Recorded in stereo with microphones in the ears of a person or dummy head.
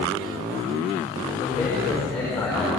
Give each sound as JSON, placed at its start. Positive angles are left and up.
{"t": 1.4, "sound": "a man speaking", "side_deg": 5, "distance_m": 5.0}